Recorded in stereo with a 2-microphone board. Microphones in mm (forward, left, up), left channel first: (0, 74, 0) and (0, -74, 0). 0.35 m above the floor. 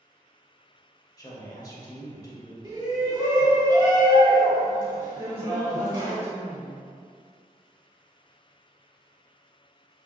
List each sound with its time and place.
1.2 s a woman speaking: 25° left (ahead or behind), 1.0 m
2.6 s a shout: 30° right (ahead or behind), 1.9 m
5.2 s a woman speaking: 20° right (ahead or behind), 0.8 m